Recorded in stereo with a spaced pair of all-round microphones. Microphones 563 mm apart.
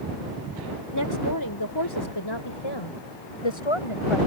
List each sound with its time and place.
0.9 s a woman speaking: 30° left (ahead or behind); by 4.2 s 55° left (ahead or behind)